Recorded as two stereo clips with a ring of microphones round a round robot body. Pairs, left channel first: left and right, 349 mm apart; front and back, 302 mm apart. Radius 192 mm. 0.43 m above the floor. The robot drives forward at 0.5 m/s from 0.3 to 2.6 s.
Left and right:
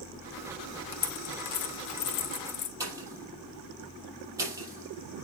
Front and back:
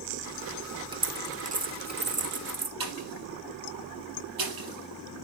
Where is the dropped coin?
105° left, 1.6 m; by 2.7 s 130° left, 2.0 m.